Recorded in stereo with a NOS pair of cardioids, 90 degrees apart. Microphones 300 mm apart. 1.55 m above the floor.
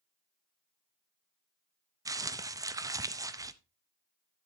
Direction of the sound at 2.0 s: 10° right.